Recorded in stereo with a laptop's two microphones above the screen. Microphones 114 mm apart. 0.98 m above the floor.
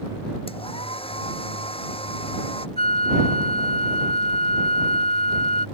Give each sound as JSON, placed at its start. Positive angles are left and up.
{"t": 0.5, "sound": "a hair dryer", "side_deg": 55}
{"t": 2.8, "sound": "a flute", "side_deg": 60}